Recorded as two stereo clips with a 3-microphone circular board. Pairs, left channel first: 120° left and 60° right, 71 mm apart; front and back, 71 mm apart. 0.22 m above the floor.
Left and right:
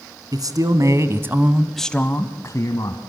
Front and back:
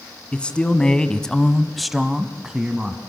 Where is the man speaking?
75° right, 1.9 m; by 3.0 s 105° left, 1.8 m.